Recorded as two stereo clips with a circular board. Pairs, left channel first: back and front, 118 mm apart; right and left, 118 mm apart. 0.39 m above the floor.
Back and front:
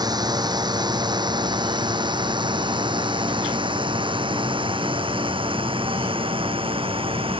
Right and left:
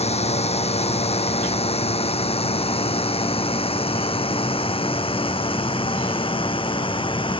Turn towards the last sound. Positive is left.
turn(degrees=-45)